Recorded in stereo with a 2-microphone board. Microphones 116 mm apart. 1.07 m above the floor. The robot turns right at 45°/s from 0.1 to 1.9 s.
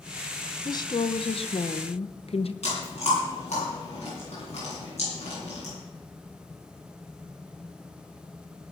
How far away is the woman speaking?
About 0.6 m.